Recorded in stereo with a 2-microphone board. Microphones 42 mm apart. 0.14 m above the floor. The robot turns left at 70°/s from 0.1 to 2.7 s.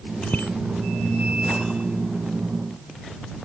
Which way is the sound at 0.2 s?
40° left (ahead or behind).